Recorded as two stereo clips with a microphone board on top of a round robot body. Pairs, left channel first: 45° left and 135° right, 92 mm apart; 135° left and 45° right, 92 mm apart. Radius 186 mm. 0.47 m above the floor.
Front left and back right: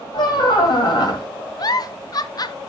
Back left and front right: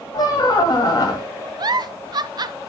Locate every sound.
0.1 s a squeak: 85° left, 2 m
1.6 s a giggle: straight ahead, 0.5 m